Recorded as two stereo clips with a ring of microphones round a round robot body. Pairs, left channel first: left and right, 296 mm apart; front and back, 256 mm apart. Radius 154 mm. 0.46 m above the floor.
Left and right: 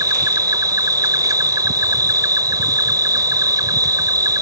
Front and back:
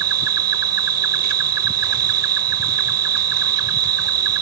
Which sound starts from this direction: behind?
An insect, at 0.0 s.